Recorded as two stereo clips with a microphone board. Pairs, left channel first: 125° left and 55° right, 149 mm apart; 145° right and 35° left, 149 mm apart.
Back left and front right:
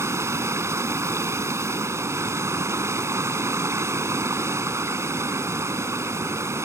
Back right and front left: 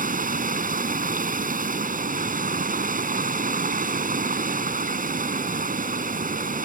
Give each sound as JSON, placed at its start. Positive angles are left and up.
{"t": 0.0, "sound": "running water", "azimuth_deg": 15}